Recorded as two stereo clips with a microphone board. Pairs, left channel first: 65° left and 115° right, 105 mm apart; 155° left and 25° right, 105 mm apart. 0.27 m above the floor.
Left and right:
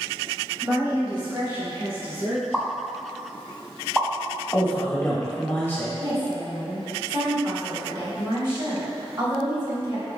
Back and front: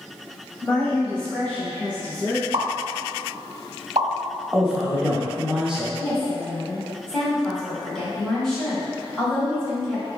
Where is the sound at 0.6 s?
125° right, 1.0 m; by 2.7 s 130° right, 2.5 m.